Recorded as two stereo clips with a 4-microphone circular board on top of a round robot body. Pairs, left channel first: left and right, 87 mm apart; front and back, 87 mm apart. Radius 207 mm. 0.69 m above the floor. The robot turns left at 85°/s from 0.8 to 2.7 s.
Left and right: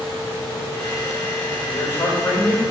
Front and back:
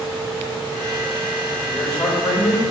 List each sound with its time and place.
1.7 s a man speaking: 60° left, 4.5 m; by 2.6 s 20° right, 4.5 m